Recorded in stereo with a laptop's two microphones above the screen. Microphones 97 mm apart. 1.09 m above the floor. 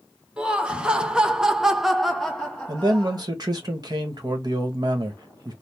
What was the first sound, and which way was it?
Laughter, 10° right (ahead or behind).